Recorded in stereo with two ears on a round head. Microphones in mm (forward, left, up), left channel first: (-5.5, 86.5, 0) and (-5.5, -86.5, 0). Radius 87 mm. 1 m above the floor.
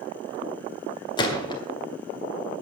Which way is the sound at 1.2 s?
25° left (ahead or behind).